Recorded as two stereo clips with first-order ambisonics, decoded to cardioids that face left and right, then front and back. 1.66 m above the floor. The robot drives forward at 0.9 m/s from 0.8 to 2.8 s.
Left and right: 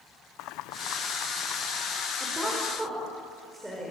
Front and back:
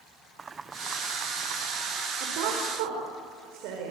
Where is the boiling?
110° left, 0.7 m; by 2.1 s 155° left, 1.5 m.